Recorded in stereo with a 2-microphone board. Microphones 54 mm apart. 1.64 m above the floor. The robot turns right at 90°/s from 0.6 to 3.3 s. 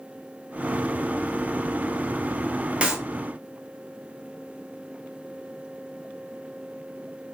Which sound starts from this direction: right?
A clap, at 2.8 s.